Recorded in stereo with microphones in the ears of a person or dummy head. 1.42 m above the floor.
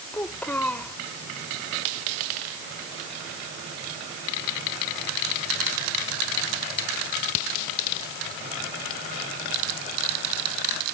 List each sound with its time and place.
0.1 s a child speaking: 5° left (ahead or behind)